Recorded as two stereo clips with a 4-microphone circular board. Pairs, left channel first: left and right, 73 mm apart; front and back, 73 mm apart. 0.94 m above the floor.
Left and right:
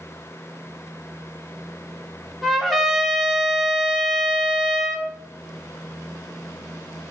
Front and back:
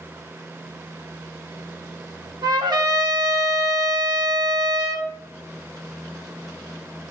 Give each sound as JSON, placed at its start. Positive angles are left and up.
{"t": 2.4, "sound": "a trumpet", "azimuth_deg": 175, "distance_m": 1.0}